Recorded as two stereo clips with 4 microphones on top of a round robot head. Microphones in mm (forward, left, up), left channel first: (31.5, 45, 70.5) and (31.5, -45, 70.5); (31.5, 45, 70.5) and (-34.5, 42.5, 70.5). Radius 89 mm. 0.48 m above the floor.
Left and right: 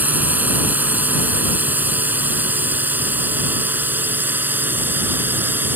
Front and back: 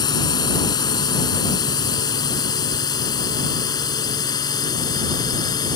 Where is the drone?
20° right.